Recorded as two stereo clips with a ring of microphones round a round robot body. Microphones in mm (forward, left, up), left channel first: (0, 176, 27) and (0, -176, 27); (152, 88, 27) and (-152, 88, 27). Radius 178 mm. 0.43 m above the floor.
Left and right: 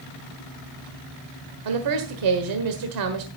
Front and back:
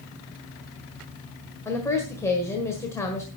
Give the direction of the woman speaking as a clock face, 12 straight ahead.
3 o'clock.